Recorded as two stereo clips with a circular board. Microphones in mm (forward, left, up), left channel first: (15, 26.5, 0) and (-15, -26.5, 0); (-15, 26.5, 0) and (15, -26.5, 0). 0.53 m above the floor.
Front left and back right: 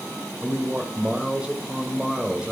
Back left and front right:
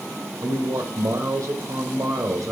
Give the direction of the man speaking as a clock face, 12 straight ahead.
2 o'clock.